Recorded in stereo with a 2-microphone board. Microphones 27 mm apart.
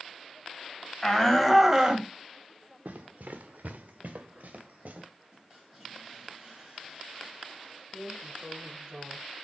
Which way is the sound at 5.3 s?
10° right (ahead or behind).